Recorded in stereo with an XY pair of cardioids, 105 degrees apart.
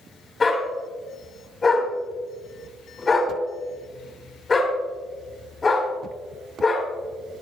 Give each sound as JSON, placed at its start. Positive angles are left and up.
{"t": 0.4, "sound": "a dog barking", "azimuth_deg": 30, "distance_m": 3.5}